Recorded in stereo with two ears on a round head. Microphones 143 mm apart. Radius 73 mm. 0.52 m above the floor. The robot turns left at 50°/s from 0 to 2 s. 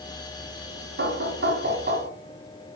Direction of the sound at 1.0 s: 75° right.